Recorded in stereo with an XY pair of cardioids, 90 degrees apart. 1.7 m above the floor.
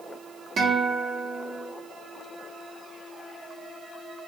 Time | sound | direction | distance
0.6 | a guitar | 55° right | 1.1 m